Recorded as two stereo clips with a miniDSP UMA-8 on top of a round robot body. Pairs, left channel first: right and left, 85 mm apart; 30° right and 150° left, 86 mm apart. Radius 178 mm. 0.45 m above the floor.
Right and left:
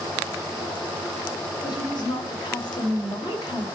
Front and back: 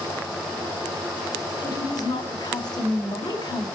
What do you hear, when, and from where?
1.6 s a woman speaking: 60° right, 3 m